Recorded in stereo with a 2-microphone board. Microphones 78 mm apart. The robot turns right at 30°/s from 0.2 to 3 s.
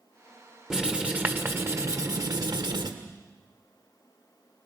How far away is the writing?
About 1.4 m.